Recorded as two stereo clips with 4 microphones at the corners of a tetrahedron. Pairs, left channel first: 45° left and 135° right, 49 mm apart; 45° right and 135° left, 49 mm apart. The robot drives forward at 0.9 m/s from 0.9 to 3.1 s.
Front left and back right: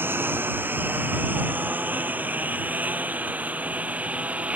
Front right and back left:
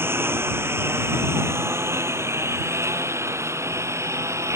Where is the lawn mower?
Straight behind; by 4.6 s 160° left.